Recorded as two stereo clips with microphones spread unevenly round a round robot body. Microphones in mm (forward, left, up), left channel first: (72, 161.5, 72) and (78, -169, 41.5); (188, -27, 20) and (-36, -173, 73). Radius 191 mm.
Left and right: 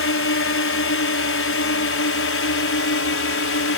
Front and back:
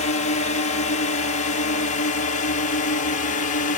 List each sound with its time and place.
0.0 s a drone: 65° left; by 3.8 s 60° left